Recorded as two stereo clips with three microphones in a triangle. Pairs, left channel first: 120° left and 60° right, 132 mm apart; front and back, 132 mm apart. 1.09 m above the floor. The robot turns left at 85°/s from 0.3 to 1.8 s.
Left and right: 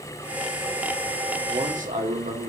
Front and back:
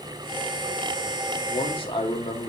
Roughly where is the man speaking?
Ahead.